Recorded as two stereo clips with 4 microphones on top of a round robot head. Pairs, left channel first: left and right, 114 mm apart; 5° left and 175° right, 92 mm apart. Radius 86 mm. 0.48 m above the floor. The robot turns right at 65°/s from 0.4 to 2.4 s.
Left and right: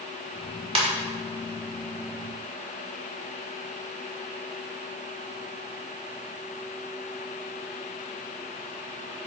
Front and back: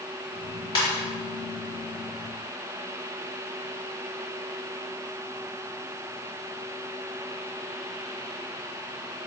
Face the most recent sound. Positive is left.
turn(degrees=55)